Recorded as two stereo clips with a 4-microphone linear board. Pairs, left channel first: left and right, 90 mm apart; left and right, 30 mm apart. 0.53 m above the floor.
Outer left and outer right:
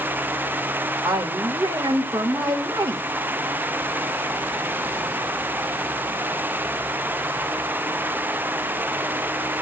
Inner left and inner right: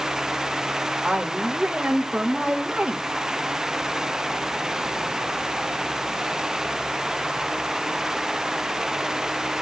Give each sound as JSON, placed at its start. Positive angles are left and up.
{"t": 1.0, "sound": "a woman speaking", "side_deg": -35, "distance_m": 1.5}